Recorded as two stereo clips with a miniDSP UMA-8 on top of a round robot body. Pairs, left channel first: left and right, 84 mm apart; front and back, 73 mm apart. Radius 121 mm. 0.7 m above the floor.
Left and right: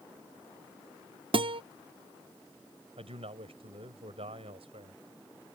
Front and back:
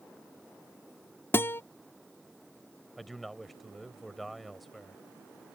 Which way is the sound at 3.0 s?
90° right.